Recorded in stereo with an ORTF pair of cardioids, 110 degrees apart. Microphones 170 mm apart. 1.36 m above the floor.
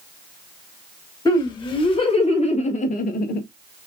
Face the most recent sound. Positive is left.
turn(degrees=65)